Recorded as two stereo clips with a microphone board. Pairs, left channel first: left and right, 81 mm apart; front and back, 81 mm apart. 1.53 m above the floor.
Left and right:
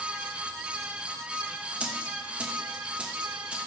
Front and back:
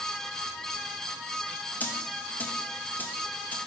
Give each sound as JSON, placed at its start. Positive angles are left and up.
{"t": 1.8, "sound": "a dropped coin", "azimuth_deg": -35, "distance_m": 0.8}